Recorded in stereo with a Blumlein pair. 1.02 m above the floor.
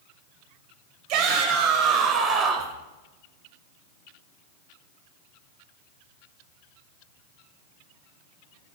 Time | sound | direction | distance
1.1 | a shout | 40° right | 5 m